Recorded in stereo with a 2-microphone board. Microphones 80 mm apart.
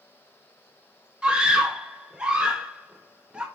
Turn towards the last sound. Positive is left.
turn(degrees=-10)  # may be behind; listen again after turning